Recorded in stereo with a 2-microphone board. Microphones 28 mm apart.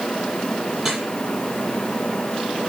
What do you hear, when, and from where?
0.8 s dripping: 10° right (ahead or behind), 8.5 m